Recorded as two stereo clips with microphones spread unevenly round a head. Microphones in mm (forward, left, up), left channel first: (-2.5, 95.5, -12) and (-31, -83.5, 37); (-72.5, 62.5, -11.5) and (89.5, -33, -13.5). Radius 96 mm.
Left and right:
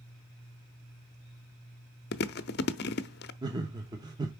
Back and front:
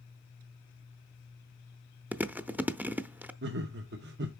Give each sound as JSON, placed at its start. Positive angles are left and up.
{"t": 2.1, "sound": "chewing", "azimuth_deg": 50, "distance_m": 0.5}
{"t": 3.4, "sound": "laughter", "azimuth_deg": -25, "distance_m": 0.7}